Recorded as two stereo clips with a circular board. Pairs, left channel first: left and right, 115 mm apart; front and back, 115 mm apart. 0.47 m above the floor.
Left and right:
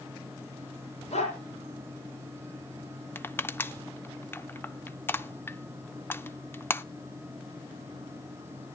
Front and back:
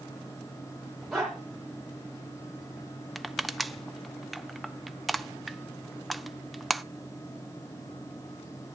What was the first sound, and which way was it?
A dog barking, 90° left.